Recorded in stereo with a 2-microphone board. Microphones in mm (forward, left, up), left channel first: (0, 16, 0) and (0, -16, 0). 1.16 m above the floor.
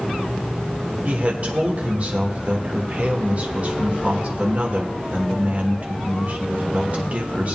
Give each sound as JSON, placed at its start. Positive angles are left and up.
{"t": 1.1, "sound": "a man speaking", "side_deg": -45, "distance_m": 1.5}